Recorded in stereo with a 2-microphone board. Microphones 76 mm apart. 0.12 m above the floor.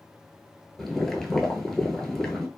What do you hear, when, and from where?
0.8 s boiling: 5° left (ahead or behind), 0.6 m